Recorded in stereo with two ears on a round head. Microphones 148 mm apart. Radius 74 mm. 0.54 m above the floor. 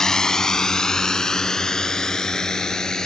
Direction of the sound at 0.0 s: 5° left (ahead or behind).